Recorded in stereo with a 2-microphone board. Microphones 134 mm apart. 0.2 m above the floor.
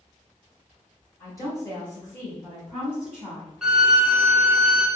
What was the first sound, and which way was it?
A woman speaking, 25° left (ahead or behind).